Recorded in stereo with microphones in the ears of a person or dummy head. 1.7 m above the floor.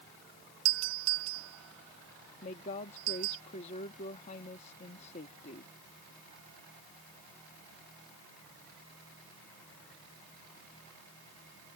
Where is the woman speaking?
45° left (ahead or behind).